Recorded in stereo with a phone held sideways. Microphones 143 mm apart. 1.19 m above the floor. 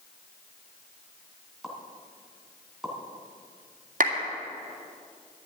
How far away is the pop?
About 2.5 m.